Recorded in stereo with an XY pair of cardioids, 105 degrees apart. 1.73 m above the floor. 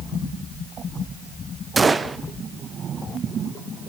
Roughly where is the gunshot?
Ahead right.